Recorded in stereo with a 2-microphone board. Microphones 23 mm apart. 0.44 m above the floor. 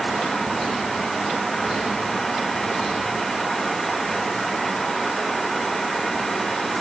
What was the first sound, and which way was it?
Only background noise.